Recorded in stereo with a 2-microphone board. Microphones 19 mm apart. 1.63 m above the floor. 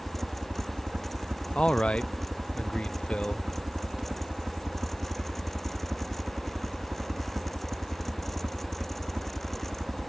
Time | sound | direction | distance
0.0 | a helicopter | 65° right (ahead or behind) | ?
1.6 | a man speaking | 80° left | ?